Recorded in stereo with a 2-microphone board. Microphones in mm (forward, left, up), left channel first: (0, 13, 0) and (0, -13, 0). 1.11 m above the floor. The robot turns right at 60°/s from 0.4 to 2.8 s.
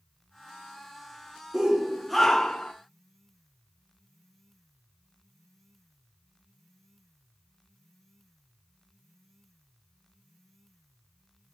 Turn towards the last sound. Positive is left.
turn(degrees=45)